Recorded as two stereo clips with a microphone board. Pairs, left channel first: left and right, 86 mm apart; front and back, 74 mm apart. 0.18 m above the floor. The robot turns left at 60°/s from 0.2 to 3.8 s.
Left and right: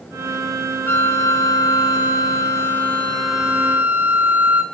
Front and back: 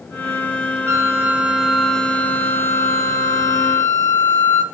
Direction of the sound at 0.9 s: 145° left.